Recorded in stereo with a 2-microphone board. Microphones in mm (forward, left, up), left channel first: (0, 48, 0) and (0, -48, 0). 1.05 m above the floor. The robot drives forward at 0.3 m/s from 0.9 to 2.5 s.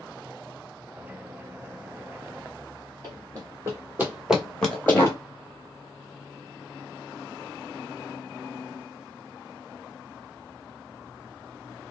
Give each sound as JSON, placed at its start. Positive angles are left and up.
{"t": 3.0, "sound": "running footsteps", "side_deg": -45, "distance_m": 1.8}